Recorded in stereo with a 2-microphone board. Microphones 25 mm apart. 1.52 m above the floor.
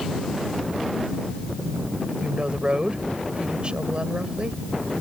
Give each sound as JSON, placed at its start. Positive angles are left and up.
{"t": 2.2, "sound": "a woman speaking", "side_deg": -40}